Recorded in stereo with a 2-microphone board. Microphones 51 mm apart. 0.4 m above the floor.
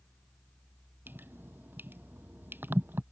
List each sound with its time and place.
1.1 s dripping: 40° right (ahead or behind)